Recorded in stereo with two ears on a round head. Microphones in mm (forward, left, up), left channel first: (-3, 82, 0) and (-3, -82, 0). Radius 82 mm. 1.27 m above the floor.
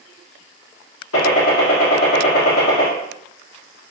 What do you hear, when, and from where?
1.1 s a gunshot: 85° left, 1.2 m